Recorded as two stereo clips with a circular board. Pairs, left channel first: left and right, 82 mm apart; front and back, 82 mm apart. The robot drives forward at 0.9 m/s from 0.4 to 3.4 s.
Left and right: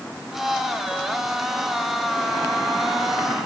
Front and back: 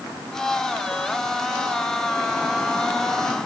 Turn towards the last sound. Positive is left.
No sound to turn to.